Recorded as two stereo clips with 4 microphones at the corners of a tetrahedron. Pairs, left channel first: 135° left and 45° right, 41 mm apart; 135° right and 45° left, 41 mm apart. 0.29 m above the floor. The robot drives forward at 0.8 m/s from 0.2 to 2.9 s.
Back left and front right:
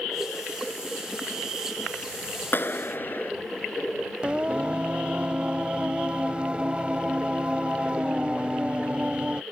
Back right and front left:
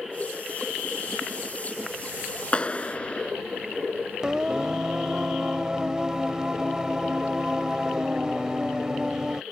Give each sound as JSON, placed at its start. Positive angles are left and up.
{"t": 2.5, "sound": "a clap", "azimuth_deg": 165}
{"t": 4.2, "sound": "singing", "azimuth_deg": -15}